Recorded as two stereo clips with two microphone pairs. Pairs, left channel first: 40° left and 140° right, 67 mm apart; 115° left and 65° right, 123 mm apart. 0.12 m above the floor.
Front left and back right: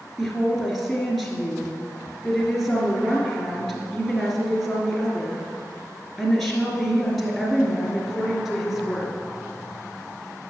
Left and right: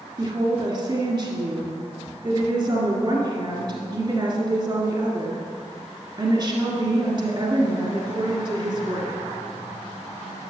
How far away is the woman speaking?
About 1.6 m.